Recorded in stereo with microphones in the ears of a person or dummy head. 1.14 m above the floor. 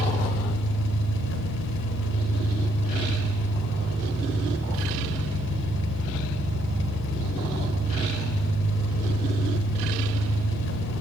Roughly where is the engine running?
Left.